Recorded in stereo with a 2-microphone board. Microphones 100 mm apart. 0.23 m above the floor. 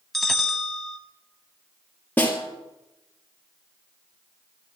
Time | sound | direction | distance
0.1 | a bell | centre (ahead or behind) | 0.7 m
2.2 | a snare drum | 20° left (ahead or behind) | 1.3 m